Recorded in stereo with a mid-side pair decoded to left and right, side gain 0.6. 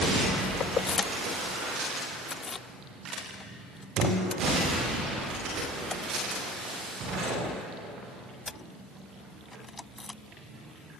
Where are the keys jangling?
45° left; by 10.2 s 20° left.